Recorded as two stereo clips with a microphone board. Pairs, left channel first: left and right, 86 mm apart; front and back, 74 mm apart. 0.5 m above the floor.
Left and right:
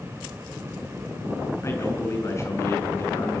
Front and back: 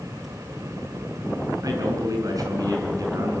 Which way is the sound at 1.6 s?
145° left.